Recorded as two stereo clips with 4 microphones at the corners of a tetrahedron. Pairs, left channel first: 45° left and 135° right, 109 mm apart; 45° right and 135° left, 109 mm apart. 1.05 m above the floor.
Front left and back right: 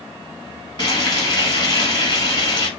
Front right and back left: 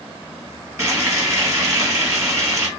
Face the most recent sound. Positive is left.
turn(degrees=80)